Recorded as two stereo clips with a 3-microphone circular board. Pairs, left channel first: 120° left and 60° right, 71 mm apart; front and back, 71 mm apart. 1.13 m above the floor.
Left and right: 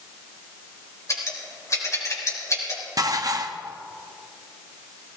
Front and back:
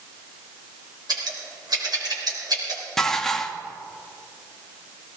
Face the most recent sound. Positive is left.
turn(degrees=-85)